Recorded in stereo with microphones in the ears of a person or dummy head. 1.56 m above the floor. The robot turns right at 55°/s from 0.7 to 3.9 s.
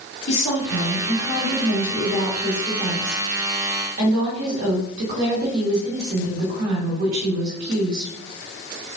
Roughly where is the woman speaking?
Ahead left.